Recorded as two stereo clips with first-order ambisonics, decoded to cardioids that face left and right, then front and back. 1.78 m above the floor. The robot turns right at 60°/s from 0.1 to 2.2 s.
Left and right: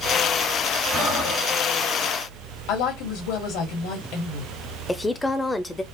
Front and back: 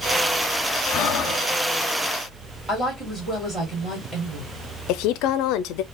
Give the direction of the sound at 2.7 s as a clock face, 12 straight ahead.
9 o'clock.